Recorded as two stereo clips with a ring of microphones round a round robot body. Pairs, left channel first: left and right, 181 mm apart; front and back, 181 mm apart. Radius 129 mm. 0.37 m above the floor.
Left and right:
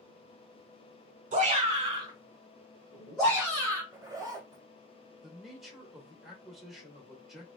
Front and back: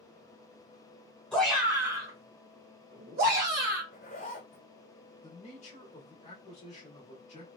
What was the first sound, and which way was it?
A shout, 85° right.